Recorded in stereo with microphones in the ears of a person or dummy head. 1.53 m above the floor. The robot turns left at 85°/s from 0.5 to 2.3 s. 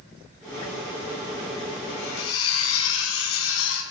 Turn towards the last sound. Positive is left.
turn(degrees=90)